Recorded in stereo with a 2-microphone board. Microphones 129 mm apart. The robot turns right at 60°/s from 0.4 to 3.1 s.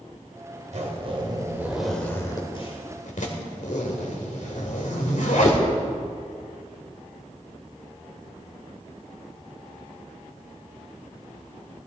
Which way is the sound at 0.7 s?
65° right (ahead or behind).